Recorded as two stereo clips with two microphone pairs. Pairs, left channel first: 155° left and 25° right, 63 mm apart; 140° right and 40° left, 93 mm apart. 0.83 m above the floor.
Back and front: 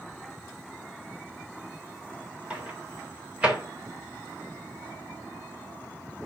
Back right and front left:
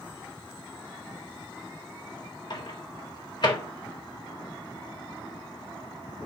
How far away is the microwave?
About 2.5 m.